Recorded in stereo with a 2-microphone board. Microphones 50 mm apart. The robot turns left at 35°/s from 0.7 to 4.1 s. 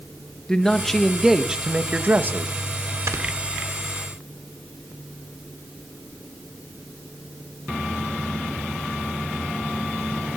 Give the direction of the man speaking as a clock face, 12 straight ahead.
12 o'clock.